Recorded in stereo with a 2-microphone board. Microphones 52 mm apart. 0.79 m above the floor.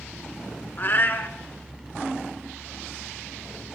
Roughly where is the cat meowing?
Left.